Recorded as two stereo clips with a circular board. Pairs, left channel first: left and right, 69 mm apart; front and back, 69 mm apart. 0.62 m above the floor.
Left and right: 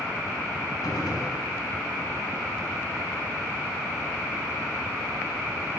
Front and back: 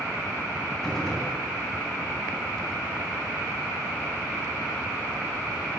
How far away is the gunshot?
About 4.5 m.